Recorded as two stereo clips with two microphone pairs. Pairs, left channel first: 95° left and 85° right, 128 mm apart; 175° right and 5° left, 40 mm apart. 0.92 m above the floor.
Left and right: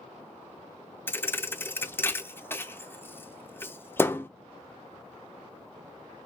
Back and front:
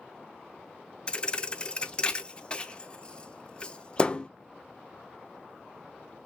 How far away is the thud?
About 0.5 m.